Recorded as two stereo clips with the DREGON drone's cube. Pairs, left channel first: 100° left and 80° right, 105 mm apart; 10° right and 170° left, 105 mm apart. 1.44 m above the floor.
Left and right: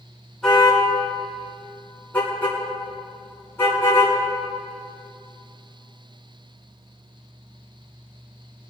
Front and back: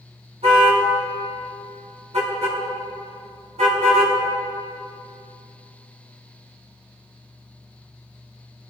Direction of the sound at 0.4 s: 175° right.